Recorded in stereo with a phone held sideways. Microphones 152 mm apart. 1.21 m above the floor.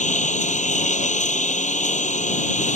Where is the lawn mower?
55° left (ahead or behind).